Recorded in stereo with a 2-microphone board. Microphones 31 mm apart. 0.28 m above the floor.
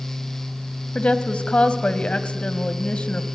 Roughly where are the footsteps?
I don't hear footsteps.